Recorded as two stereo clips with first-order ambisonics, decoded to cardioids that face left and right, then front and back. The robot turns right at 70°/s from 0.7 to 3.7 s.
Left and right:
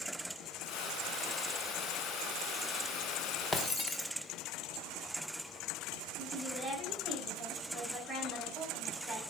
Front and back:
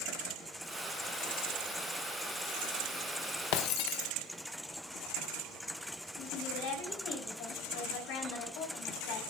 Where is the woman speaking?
5° left, 6 m.